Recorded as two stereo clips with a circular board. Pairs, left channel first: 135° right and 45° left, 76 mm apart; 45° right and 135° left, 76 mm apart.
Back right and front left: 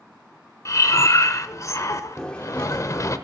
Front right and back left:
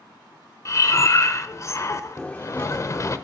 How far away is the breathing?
About 0.7 m.